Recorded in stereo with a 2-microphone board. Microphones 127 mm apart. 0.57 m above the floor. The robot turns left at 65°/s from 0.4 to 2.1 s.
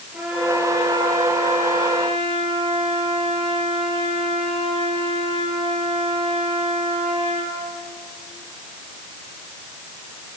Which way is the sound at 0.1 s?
10° right.